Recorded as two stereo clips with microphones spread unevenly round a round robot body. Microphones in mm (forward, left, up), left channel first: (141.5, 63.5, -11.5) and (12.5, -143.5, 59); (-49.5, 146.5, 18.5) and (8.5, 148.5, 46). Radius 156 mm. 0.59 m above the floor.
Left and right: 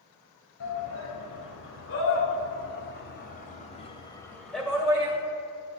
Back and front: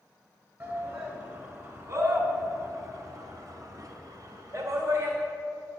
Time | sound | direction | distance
0.6 | a shout | 60° left | 4 m